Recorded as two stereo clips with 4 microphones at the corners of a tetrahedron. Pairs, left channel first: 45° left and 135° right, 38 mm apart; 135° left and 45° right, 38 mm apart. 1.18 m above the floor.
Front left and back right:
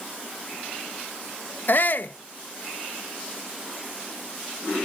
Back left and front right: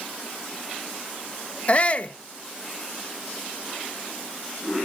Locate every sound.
1.7 s a shout: 80° left, 1.0 m